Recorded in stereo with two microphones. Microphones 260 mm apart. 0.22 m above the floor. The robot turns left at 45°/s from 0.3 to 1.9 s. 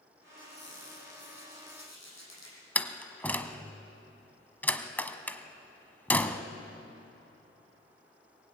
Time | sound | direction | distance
0.4 | a squeak | 150° left | 7.5 m
2.8 | a door slam | 5° left (ahead or behind) | 1.1 m